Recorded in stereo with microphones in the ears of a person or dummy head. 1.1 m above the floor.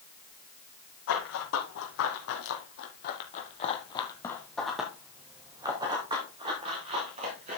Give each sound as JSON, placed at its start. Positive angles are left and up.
{"t": 1.1, "sound": "running footsteps", "side_deg": 75, "distance_m": 4.5}